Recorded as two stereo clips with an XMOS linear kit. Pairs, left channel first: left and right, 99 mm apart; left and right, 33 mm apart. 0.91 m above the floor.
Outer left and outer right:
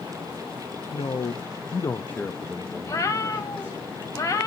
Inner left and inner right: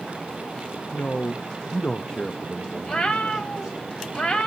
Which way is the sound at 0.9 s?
70° left (ahead or behind).